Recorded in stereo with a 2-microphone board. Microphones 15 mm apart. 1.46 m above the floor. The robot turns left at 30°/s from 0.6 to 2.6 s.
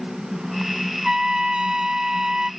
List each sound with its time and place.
1.0 s a trumpet: 60° right; by 2.5 s 105° right